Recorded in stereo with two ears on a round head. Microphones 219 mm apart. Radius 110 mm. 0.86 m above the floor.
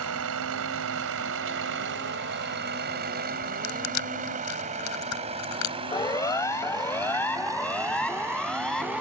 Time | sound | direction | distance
0.0 | a vehicle | 70° right (ahead or behind) | ?
3.6 | crushing | 80° left | ?
5.9 | a siren | 15° left (ahead or behind) | ?